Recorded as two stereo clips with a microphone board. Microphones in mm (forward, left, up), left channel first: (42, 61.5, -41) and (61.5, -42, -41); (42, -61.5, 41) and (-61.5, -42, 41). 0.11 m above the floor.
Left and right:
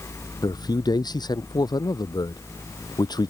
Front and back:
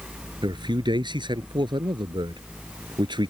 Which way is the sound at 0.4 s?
140° left.